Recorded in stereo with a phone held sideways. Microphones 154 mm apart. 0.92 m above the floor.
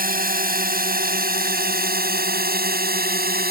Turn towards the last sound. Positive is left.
turn(degrees=-75)  # may be behind; listen again after turning